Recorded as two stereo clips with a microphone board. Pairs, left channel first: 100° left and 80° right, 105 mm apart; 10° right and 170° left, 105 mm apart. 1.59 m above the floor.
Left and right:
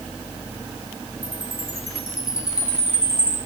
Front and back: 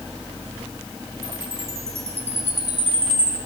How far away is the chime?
About 5.5 m.